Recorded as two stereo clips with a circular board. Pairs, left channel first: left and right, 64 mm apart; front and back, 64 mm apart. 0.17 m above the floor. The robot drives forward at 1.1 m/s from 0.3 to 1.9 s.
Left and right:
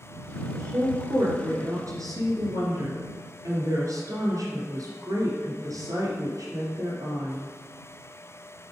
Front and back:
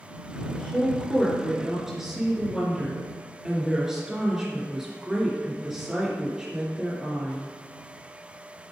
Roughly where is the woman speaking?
Ahead right.